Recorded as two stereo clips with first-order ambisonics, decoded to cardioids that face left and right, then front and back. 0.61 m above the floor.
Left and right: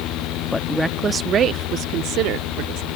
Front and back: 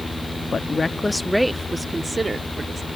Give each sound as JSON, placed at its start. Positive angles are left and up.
{"t": 0.5, "sound": "a woman speaking", "azimuth_deg": 45}